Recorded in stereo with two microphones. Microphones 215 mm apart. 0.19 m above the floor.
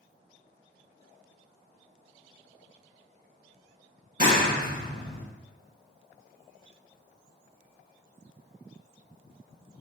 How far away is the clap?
About 1.6 m.